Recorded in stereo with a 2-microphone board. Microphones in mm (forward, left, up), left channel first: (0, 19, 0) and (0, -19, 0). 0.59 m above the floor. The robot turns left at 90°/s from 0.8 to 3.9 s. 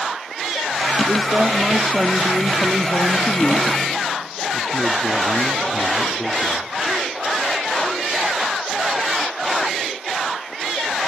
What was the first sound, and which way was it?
A man speaking, 100° right.